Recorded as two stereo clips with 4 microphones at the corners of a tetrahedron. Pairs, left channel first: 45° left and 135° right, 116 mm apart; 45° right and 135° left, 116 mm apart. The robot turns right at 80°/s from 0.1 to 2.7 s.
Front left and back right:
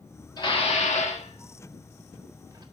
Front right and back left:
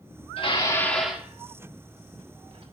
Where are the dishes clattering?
10° right, 1.5 m; by 2.6 s 175° left, 1.5 m.